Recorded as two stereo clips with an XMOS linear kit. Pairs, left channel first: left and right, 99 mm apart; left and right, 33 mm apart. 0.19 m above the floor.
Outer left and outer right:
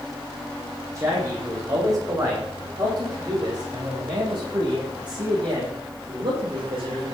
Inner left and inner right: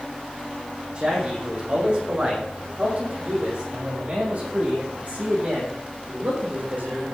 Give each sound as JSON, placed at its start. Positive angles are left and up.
{"t": 0.9, "sound": "a man speaking", "side_deg": -35, "distance_m": 8.0}